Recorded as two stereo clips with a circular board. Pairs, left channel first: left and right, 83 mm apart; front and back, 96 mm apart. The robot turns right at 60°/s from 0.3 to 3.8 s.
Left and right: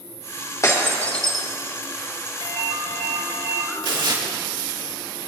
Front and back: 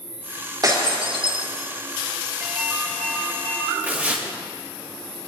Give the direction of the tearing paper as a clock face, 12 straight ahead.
4 o'clock.